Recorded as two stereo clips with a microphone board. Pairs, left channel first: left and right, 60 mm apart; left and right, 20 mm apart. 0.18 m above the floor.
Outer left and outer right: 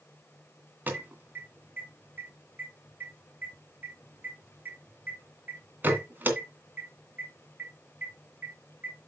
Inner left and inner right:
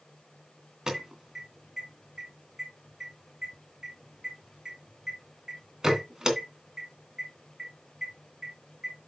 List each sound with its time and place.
0.9 s an alarm: 30° right (ahead or behind), 2.5 m